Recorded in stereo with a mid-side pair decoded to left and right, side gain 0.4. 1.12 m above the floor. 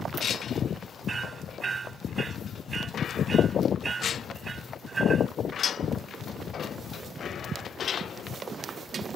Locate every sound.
1.1 s hammering: 45° right